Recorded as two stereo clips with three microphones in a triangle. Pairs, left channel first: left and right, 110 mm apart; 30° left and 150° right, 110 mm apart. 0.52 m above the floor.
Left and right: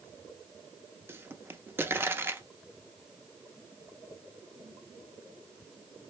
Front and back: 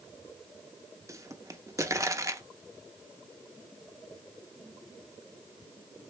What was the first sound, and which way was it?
A pop, 135° right.